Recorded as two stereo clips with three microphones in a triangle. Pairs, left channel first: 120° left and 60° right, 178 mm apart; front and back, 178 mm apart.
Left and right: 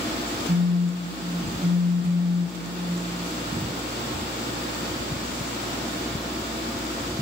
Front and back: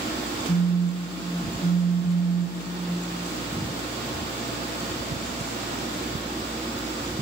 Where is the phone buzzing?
30° right, 2 m.